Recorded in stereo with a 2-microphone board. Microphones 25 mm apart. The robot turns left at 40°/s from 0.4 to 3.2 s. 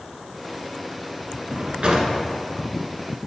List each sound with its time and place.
1.5 s a drawer: 50° right (ahead or behind), 1.1 m; by 2.1 s 40° right (ahead or behind), 1.1 m